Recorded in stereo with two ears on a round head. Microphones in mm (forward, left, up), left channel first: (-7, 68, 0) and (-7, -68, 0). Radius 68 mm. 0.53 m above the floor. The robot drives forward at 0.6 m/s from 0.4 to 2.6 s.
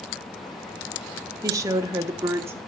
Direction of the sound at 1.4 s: 20° right (ahead or behind).